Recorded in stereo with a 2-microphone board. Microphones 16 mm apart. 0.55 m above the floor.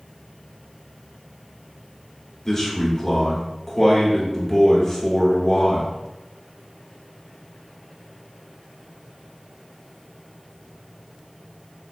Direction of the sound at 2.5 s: 20° left (ahead or behind).